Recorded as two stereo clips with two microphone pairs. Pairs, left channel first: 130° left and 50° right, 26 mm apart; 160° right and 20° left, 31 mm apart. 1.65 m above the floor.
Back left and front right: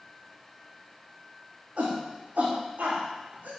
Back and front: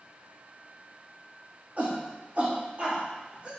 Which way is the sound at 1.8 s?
25° right.